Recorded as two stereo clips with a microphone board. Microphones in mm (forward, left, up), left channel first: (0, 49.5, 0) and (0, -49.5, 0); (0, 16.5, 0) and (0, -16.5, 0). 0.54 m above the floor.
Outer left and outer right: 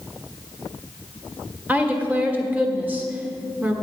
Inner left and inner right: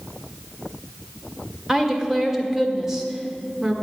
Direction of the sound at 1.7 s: 15° right (ahead or behind).